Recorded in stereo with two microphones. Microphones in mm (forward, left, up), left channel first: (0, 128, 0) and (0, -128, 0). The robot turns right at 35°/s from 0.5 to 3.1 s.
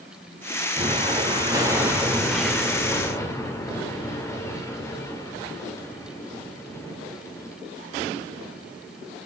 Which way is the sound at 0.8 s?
25° right (ahead or behind).